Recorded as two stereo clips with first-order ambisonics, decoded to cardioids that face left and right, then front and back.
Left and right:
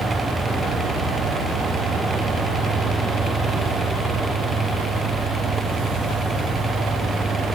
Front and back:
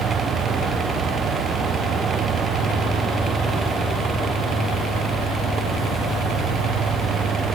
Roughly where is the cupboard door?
No cupboard door in this recording.